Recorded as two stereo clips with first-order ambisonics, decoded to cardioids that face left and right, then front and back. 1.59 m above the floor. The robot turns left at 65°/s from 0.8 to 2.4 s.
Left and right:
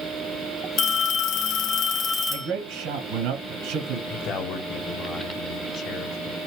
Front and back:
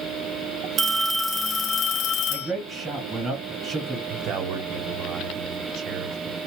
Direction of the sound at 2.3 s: 95° right.